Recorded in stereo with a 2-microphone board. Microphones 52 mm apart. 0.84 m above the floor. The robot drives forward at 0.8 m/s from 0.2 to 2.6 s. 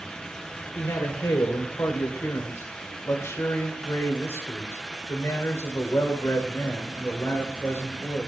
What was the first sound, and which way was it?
A man speaking, 80° left.